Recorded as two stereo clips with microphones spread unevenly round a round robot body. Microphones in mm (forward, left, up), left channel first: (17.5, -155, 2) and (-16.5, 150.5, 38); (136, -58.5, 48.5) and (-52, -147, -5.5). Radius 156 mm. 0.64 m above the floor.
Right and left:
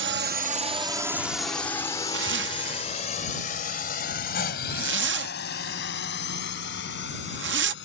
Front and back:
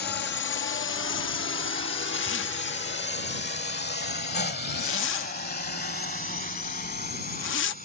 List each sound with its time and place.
0.0 s a drone: 65° left; by 7.8 s 25° right
2.1 s a zipper: 50° left